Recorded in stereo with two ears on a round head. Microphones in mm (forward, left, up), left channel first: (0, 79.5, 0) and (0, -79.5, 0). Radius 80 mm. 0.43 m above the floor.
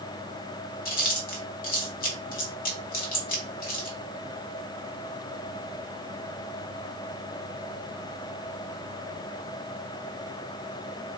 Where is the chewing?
50° left (ahead or behind), 0.9 m.